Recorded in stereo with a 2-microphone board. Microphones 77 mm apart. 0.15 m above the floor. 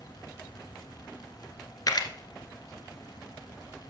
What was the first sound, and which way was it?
A camera shutter, 55° left (ahead or behind).